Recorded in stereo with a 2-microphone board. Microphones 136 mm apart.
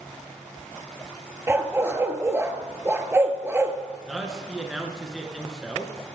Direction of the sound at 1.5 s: 20° right (ahead or behind).